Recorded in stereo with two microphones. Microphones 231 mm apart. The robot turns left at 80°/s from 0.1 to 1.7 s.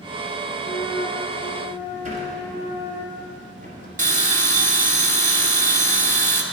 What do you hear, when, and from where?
0.6 s a flute: 75° left, 1.9 m; by 3.0 s 10° right, 1.9 m
2.0 s a sliding door: 35° right (ahead or behind), 1.9 m
4.0 s a bell: 35° right (ahead or behind), 0.8 m